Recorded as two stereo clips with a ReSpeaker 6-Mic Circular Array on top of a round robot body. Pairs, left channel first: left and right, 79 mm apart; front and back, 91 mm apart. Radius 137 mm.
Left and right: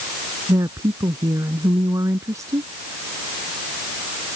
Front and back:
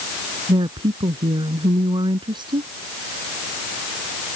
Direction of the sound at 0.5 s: 140° right.